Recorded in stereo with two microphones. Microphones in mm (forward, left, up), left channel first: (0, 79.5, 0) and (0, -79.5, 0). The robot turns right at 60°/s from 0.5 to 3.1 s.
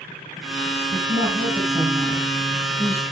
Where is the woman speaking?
85° right, 4 m; by 3.0 s 40° left, 4 m.